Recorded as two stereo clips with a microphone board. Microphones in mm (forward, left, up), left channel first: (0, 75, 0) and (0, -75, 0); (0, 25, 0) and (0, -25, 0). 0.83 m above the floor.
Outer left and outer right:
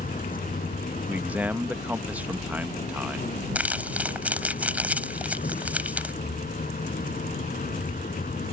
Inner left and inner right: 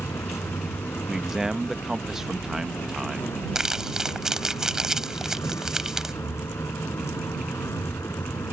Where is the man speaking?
10° right (ahead or behind).